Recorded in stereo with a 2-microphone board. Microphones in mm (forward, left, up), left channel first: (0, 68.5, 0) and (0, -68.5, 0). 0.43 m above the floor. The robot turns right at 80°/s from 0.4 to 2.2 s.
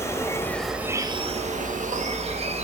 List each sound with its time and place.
0.0 s an insect: 160° left, 0.9 m; by 2.6 s 55° right, 0.9 m